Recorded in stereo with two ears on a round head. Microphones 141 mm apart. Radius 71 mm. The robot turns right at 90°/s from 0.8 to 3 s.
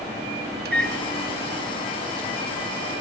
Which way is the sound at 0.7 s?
65° right (ahead or behind).